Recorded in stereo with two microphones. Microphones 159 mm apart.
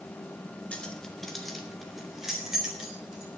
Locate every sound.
0.7 s keys jangling: 10° left (ahead or behind), 1.7 m; by 3.4 s 5° right (ahead or behind), 5.5 m